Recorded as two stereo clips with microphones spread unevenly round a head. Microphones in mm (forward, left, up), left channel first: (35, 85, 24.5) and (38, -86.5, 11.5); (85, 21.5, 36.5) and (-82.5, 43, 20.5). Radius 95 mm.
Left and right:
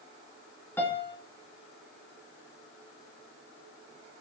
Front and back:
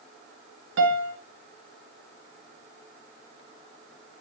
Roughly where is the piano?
Behind.